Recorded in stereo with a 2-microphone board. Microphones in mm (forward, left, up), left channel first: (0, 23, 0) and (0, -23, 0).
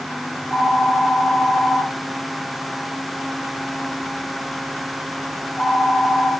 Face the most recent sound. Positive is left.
turn(degrees=20)  # may be behind; listen again after turning